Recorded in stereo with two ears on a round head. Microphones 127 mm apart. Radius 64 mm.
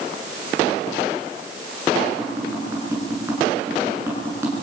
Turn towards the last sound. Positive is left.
turn(degrees=-20)  # may be behind; listen again after turning